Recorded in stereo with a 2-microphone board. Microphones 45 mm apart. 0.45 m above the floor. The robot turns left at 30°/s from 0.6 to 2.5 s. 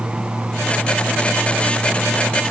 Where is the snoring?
No snoring in this recording.